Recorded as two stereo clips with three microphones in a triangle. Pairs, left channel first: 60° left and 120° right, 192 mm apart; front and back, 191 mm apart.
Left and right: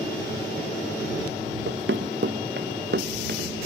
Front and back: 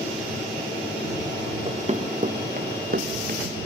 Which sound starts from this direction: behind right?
Running footsteps, at 1.7 s.